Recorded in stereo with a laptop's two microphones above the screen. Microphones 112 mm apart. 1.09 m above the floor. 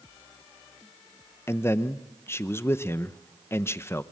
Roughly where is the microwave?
I don't hear a microwave.